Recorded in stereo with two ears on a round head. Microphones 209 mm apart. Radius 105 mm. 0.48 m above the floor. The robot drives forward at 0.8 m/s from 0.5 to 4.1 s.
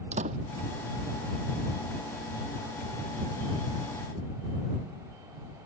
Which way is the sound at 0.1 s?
30° right (ahead or behind).